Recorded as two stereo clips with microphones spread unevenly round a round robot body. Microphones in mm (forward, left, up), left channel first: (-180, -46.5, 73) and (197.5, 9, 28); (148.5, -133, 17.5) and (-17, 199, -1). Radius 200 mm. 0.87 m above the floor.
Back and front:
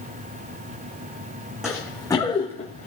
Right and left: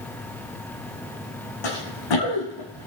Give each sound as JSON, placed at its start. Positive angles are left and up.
{"t": 1.6, "sound": "running footsteps", "azimuth_deg": -85, "distance_m": 2.5}